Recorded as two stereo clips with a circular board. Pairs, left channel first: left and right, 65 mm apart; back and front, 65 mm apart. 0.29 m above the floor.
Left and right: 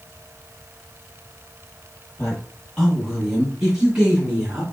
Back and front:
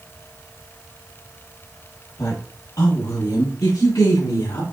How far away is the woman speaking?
About 2.5 m.